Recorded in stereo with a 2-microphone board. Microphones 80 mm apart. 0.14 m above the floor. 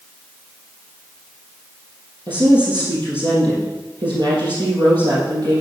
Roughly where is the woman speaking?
Right.